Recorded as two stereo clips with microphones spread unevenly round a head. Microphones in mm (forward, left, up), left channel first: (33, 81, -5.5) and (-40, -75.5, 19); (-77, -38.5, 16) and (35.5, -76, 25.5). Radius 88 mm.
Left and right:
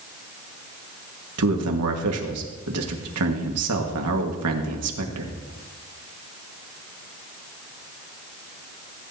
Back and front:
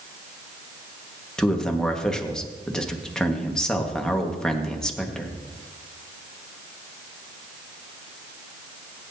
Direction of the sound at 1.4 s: 115° right.